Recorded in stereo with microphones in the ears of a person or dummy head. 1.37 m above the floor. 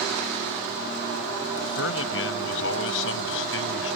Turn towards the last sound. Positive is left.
turn(degrees=75)  # may be behind; listen again after turning